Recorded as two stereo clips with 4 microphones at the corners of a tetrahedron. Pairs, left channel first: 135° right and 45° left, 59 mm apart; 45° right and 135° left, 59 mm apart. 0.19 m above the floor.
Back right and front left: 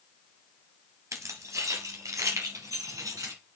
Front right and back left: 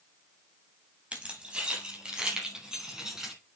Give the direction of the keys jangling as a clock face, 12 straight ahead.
10 o'clock.